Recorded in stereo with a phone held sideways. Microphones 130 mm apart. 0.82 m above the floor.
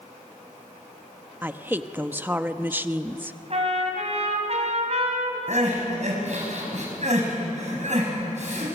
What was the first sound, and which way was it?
A woman speaking, 15° right (ahead or behind).